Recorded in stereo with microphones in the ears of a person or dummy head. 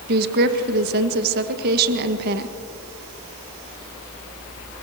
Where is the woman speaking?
50° right (ahead or behind), 1.5 m.